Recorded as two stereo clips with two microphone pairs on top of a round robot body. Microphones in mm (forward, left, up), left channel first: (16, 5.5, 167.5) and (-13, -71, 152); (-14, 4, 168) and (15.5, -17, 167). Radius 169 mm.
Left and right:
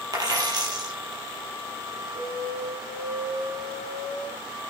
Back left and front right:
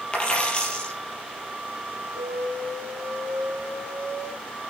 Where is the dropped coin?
155° right, 4.5 m.